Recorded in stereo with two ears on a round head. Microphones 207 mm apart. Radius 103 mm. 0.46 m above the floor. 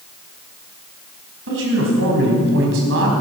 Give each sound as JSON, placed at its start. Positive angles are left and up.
{"t": 1.5, "sound": "a man speaking", "side_deg": -60, "distance_m": 4.0}